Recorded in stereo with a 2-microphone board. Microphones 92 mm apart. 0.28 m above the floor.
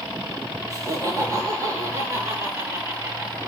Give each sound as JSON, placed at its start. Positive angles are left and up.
{"t": 0.7, "sound": "laughter", "side_deg": -40, "distance_m": 5.5}